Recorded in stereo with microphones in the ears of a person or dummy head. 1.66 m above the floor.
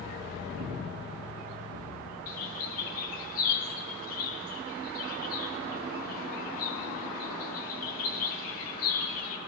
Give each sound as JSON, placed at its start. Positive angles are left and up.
{"t": 0.6, "sound": "breathing", "side_deg": -65, "distance_m": 1.5}
{"t": 2.3, "sound": "a bird", "side_deg": 50, "distance_m": 1.6}